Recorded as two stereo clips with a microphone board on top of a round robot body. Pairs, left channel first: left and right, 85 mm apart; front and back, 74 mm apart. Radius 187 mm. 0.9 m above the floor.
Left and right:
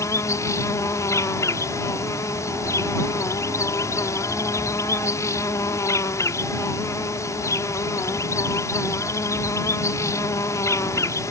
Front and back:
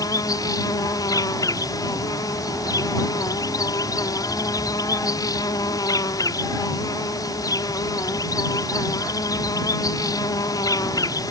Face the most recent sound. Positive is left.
turn(degrees=35)